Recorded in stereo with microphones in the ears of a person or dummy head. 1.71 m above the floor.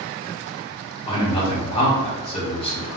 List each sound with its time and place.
1.1 s a man speaking: 30° left (ahead or behind), 1.2 m